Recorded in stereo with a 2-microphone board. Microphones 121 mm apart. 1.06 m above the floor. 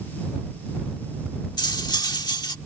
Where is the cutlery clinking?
35° left (ahead or behind).